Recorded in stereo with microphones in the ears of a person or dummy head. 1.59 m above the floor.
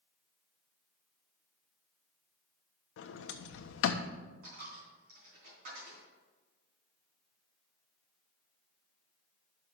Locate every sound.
3.0 s a sliding door: 80° left, 0.7 m
4.4 s a dropped coin: 55° right (ahead or behind), 3.5 m